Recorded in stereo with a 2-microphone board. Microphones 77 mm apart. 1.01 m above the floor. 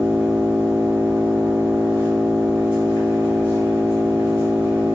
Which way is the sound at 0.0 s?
35° left (ahead or behind).